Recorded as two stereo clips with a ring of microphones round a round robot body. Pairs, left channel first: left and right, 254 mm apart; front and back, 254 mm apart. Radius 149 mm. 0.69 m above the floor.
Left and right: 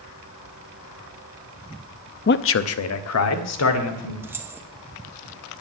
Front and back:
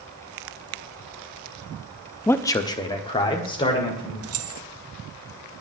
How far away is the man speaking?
About 0.5 m.